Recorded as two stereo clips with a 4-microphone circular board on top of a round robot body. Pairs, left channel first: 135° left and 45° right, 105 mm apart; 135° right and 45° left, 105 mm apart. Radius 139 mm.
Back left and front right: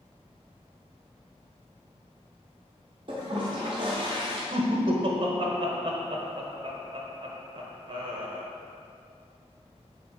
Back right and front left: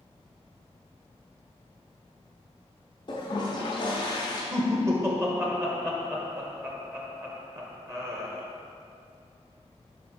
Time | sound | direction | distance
3.1 | a toilet flushing | 90° right | 0.5 m
4.5 | laughter | 15° right | 1.2 m